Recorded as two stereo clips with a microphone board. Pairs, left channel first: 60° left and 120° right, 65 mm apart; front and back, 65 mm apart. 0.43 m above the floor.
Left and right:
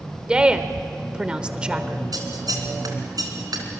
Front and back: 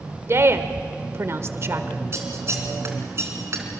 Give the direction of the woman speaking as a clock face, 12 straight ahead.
6 o'clock.